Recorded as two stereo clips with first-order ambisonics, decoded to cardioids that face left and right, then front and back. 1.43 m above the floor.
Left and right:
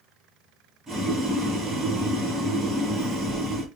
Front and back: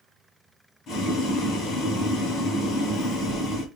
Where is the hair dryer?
No hair dryer in this recording.